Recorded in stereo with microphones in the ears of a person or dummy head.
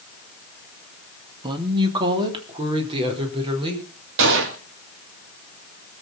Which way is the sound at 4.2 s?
60° right (ahead or behind).